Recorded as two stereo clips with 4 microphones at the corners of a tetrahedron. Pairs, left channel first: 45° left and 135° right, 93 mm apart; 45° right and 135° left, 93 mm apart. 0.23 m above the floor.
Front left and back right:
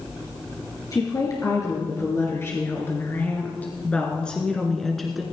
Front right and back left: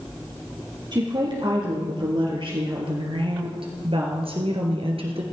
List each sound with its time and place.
0.9 s a woman speaking: 95° left, 3.5 m; by 5.2 s 135° left, 2.5 m